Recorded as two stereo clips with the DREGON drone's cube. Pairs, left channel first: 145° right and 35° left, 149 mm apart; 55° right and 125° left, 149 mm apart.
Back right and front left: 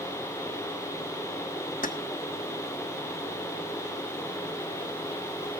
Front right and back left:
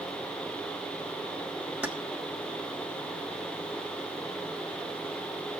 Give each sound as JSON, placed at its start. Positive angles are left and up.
{"t": 1.8, "sound": "keys jangling", "azimuth_deg": -160, "distance_m": 1.2}